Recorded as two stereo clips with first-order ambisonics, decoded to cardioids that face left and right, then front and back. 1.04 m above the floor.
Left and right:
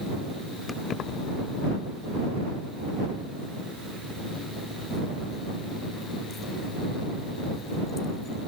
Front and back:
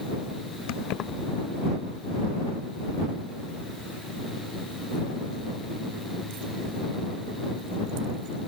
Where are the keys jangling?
10° left; by 8.5 s 160° left.